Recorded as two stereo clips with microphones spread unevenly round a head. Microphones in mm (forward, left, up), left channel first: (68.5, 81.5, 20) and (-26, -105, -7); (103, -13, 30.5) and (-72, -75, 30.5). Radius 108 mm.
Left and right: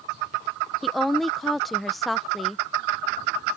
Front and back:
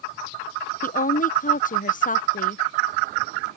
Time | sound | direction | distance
0.8 | a woman speaking | 30° right | ?